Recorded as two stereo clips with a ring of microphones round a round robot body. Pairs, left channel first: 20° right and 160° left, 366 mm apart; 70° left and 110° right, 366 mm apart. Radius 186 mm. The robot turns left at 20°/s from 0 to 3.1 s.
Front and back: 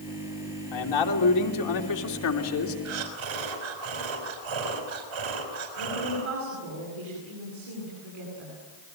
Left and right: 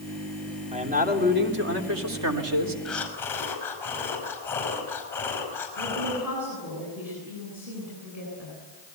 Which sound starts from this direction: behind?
A woman speaking, at 5.8 s.